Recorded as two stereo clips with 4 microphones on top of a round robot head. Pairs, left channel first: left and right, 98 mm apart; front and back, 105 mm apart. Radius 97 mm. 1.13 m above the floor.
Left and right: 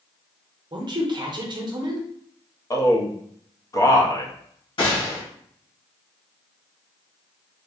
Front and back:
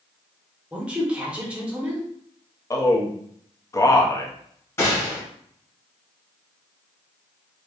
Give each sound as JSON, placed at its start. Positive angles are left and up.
{"t": 0.7, "sound": "a woman speaking", "azimuth_deg": -105, "distance_m": 0.7}
{"t": 2.7, "sound": "a man speaking", "azimuth_deg": 50, "distance_m": 0.7}
{"t": 4.8, "sound": "a gunshot", "azimuth_deg": 65, "distance_m": 1.4}